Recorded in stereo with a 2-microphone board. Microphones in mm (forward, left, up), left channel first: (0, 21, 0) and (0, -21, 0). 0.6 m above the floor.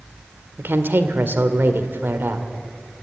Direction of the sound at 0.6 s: 55° right (ahead or behind).